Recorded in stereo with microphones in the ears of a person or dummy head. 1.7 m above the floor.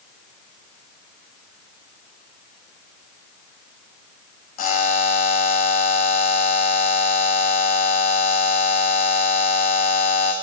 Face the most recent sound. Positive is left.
turn(degrees=45)  # may be behind; listen again after turning